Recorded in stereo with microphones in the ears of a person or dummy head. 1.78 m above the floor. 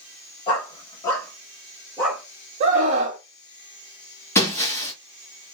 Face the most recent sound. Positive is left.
turn(degrees=15)  # may be behind; listen again after turning